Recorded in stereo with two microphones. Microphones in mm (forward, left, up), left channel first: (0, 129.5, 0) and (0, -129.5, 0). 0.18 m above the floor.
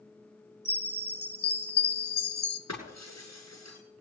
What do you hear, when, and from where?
0.7 s a chime: 40° left (ahead or behind), 1.3 m
2.7 s breaking glass: 80° left, 7.5 m